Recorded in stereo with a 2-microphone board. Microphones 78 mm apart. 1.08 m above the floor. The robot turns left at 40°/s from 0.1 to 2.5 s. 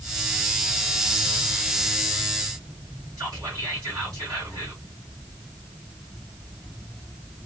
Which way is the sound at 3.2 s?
50° right (ahead or behind).